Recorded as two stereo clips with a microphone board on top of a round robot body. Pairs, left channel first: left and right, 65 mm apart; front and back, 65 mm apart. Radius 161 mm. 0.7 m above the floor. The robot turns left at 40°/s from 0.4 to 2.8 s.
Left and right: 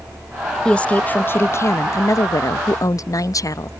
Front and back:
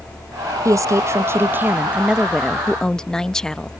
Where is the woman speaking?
165° left; by 3.7 s 80° left.